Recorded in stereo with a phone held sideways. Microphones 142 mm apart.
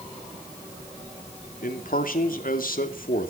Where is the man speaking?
80° left, 2.5 m.